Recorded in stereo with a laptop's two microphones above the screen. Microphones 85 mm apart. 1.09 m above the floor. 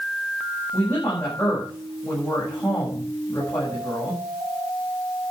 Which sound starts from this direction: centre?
A woman speaking, at 0.7 s.